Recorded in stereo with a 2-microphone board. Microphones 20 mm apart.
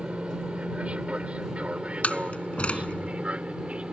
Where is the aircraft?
70° right (ahead or behind).